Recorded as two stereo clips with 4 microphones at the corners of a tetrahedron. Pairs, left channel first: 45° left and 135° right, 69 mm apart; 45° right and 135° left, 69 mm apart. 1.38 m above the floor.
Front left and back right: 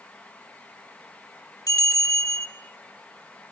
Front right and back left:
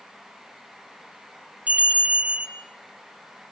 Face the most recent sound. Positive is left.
turn(degrees=65)